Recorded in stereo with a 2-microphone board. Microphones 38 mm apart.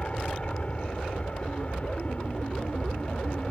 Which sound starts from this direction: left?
An aircraft, at 0.0 s.